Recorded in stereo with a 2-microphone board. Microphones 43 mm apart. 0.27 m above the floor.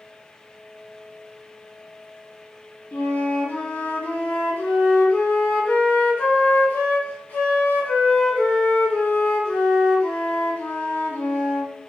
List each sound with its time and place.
2.9 s a flute: 50° left (ahead or behind), 0.7 m